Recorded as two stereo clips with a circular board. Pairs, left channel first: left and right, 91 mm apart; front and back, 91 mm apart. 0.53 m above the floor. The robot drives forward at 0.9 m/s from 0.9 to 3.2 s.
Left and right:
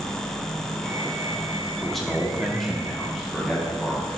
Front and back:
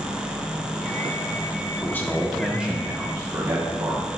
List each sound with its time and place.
1.8 s a man speaking: 5° left, 1.2 m; by 4.1 s straight behind, 1.3 m